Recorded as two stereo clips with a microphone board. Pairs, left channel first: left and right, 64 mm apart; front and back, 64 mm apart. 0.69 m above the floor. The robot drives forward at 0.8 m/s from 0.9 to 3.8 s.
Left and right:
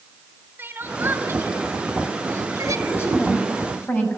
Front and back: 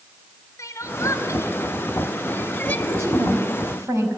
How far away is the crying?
About 2.5 m.